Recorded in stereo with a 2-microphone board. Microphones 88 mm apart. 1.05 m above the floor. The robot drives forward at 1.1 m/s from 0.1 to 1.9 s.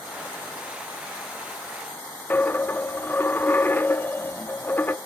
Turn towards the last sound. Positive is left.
turn(degrees=20)  # may be behind; listen again after turning